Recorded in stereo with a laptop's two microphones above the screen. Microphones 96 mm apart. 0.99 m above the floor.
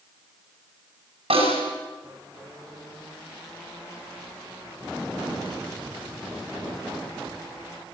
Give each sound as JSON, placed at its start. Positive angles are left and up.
{"t": 1.3, "sound": "a snare drum", "side_deg": -85, "distance_m": 7.5}